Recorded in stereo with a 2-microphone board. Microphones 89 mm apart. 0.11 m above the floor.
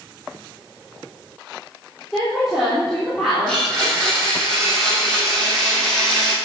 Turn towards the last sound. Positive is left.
turn(degrees=0)  # may be behind; listen again after turning